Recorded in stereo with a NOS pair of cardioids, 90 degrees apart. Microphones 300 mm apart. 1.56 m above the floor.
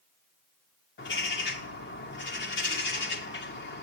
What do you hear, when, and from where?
1.0 s a bird: 40° left, 2.5 m